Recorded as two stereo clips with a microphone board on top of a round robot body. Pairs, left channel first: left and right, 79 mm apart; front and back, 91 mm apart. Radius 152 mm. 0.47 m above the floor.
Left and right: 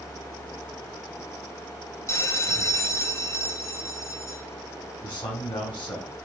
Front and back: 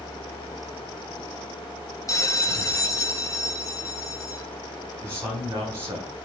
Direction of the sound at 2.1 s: 45° left.